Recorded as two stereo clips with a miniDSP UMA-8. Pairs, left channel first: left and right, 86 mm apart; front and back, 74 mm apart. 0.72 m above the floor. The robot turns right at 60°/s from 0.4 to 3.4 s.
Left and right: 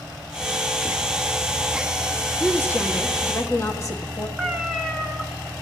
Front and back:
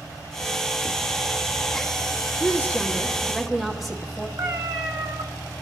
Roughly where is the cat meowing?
Behind.